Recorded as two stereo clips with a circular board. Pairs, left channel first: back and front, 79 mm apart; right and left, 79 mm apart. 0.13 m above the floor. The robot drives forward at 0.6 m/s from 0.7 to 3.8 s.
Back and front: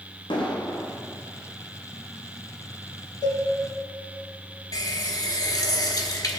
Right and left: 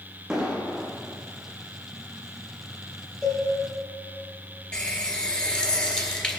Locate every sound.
0.3 s an explosion: 170° left, 2.5 m
3.2 s a cowbell: 175° right, 4 m
4.7 s a running tap: 165° right, 1.3 m